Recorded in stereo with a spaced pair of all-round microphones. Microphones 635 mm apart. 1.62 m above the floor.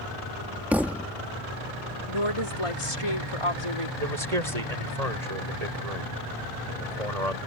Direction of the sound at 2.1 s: 50° left (ahead or behind).